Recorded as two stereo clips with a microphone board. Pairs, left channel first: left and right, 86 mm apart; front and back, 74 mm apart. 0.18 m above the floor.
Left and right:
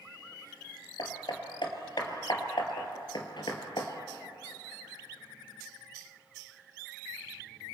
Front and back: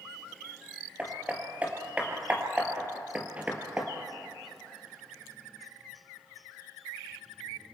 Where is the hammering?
110° left, 2.5 m.